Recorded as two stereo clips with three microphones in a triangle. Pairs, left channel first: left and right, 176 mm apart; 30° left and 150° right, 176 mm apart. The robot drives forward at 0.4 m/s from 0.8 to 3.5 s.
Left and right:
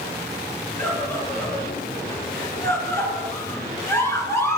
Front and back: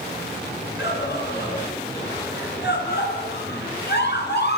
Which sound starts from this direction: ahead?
A scream, at 0.8 s.